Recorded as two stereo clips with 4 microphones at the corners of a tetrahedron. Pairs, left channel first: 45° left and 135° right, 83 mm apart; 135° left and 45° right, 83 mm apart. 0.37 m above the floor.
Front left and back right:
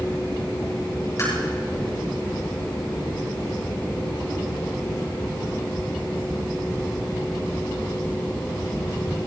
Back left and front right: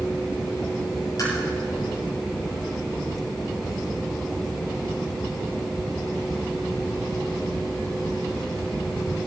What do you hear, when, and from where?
1.2 s tapping: 100° left, 8 m